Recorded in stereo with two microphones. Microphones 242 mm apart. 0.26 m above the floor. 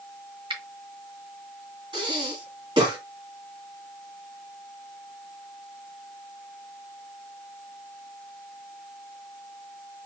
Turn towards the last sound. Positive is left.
turn(degrees=-20)  # may be behind; listen again after turning